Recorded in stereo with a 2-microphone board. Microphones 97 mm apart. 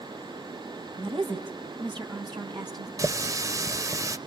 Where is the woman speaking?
60° right (ahead or behind), 3 m; by 2.9 s 45° right (ahead or behind), 3 m.